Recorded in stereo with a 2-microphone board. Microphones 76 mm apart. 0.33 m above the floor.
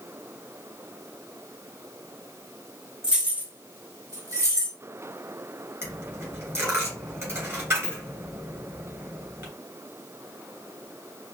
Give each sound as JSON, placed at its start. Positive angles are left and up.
{"t": 3.0, "sound": "keys jangling", "side_deg": -10, "distance_m": 0.9}
{"t": 5.8, "sound": "a dropped coin", "side_deg": -35, "distance_m": 2.5}